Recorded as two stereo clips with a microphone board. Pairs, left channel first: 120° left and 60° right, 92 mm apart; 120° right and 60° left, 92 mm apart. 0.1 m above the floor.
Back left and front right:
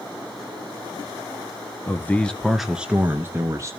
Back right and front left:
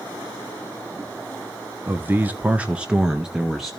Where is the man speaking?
95° left, 1.6 m; by 3.7 s 30° right, 1.8 m.